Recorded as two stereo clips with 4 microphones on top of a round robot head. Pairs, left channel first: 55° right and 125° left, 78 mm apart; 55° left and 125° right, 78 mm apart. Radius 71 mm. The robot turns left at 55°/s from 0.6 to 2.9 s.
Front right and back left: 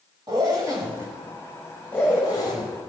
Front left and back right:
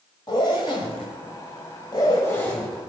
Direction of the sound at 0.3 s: 85° left.